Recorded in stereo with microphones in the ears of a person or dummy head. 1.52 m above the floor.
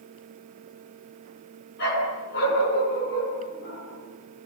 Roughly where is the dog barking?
Left.